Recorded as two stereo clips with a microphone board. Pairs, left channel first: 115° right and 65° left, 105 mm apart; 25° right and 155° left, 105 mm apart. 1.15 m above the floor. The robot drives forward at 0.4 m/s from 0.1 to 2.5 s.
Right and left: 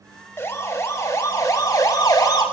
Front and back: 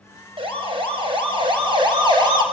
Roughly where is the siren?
Behind.